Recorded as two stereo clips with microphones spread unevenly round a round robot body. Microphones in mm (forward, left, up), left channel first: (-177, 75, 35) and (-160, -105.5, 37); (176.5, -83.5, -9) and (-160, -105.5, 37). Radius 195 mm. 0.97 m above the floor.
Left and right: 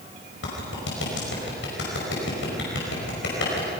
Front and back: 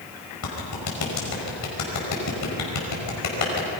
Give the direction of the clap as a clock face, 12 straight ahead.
10 o'clock.